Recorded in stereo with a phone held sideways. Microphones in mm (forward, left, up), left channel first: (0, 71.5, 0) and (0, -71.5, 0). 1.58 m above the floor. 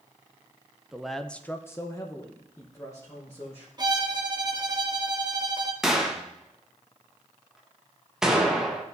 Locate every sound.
0.9 s a man speaking: 5° right (ahead or behind), 0.6 m; by 3.7 s 25° left (ahead or behind), 1.7 m
3.8 s a violin: 30° right (ahead or behind), 0.8 m
5.8 s a gunshot: 5° right (ahead or behind), 1.1 m